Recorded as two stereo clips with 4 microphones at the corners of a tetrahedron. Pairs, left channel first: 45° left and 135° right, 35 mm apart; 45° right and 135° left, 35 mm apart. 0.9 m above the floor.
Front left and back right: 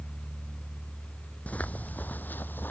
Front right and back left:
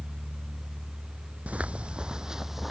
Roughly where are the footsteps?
Left.